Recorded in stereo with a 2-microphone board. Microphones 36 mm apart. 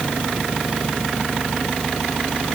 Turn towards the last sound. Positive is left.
No sound to turn to.